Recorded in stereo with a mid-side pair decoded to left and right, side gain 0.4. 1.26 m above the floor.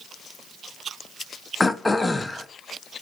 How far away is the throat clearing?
About 0.5 m.